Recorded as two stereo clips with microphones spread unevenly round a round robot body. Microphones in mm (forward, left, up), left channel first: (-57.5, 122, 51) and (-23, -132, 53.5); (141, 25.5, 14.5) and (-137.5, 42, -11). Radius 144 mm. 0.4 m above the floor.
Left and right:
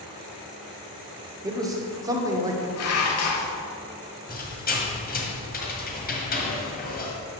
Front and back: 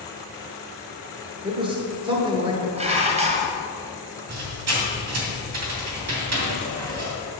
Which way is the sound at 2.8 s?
110° left.